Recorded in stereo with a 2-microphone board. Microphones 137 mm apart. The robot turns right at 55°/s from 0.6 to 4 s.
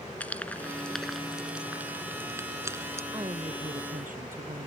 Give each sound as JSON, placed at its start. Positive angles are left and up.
{"t": 0.2, "sound": "frying", "side_deg": 10}
{"t": 3.1, "sound": "a woman speaking", "azimuth_deg": -150}